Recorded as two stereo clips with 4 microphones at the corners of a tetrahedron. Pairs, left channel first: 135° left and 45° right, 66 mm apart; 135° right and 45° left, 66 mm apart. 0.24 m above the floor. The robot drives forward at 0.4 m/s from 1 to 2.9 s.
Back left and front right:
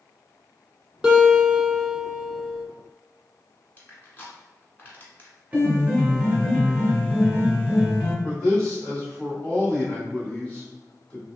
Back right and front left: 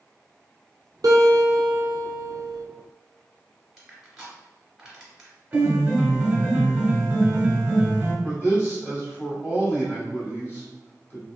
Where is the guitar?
25° left, 1.1 m; by 2.7 s 55° left, 0.6 m.